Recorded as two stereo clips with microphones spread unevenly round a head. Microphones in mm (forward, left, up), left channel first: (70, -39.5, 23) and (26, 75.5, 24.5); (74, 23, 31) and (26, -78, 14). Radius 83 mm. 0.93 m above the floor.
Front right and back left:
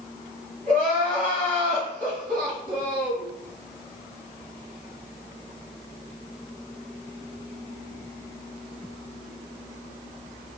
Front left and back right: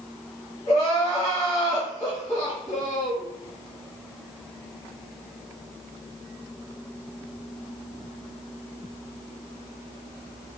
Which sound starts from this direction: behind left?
Crying, at 0.7 s.